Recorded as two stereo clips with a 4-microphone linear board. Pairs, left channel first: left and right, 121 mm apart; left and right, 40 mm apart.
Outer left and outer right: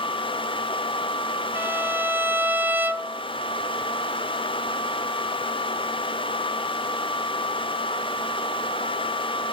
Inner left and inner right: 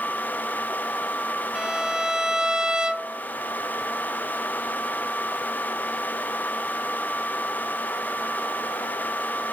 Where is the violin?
15° right (ahead or behind), 1.0 m.